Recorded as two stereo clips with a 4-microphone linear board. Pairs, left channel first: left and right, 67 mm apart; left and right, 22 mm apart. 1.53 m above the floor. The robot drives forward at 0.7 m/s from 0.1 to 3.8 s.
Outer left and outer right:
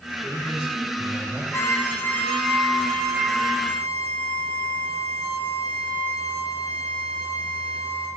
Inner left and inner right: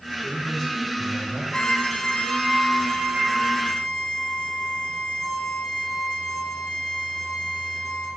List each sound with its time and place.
0.2 s a man speaking: 20° right (ahead or behind), 2 m; by 1.4 s 30° right (ahead or behind), 1.4 m
1.5 s a violin: 45° left (ahead or behind), 0.5 m; by 8.1 s 10° left (ahead or behind), 2 m